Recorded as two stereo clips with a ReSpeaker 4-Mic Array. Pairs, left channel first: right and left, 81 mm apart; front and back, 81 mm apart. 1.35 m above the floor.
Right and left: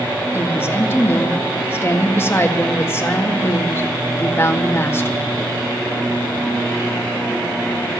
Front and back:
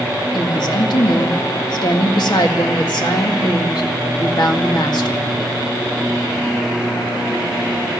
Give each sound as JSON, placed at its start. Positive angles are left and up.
{"t": 0.3, "sound": "a woman speaking", "azimuth_deg": -30, "distance_m": 1.8}